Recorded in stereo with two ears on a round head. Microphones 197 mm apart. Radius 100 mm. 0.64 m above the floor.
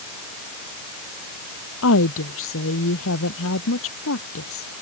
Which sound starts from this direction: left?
A woman speaking, at 1.8 s.